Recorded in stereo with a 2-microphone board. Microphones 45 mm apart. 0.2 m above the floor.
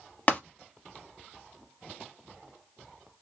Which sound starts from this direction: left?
Tapping, at 0.3 s.